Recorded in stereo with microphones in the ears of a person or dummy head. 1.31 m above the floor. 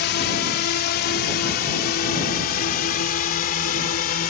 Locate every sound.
0.0 s a drone: 60° left (ahead or behind); by 4.3 s 50° left (ahead or behind)